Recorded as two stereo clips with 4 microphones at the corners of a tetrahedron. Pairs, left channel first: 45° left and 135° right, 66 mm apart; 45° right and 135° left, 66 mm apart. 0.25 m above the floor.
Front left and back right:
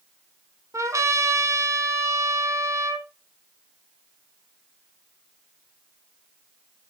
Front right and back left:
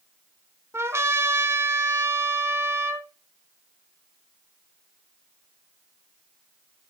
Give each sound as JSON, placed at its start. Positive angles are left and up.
{"t": 0.7, "sound": "a trumpet", "azimuth_deg": 180, "distance_m": 1.9}